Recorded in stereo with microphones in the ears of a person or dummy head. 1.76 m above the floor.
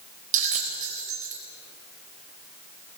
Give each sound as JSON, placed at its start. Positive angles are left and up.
{"t": 0.3, "sound": "a bell", "side_deg": -40, "distance_m": 3.0}